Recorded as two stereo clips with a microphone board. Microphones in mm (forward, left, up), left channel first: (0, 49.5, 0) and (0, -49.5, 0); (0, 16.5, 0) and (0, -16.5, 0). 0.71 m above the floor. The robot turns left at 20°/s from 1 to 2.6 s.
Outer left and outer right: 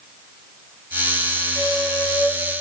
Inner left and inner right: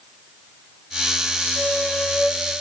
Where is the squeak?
60° left (ahead or behind), 0.9 m.